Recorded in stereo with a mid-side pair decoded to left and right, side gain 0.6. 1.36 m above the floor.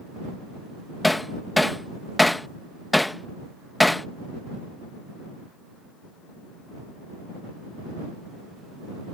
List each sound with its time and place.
1.0 s hammering: 10° left